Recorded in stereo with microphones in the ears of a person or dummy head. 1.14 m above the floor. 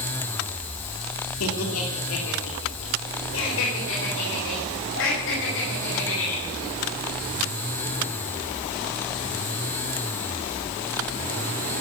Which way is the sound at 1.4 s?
85° left.